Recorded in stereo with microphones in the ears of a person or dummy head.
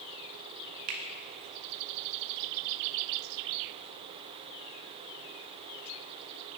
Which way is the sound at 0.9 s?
50° right (ahead or behind).